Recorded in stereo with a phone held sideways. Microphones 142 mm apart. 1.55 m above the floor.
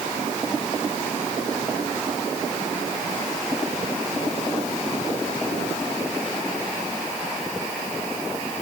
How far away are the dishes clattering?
I don't hear dishes clattering.